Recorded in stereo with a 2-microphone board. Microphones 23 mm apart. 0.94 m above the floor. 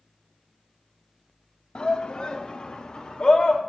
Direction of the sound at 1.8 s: 45° left (ahead or behind).